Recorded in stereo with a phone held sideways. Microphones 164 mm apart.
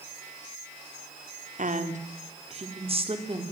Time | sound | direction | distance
1.6 | a woman speaking | 50° right (ahead or behind) | 3.5 m